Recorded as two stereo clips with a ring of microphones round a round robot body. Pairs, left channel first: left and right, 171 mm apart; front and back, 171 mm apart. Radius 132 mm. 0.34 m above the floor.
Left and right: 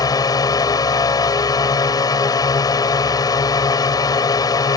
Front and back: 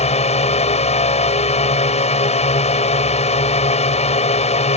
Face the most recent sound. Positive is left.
turn(degrees=30)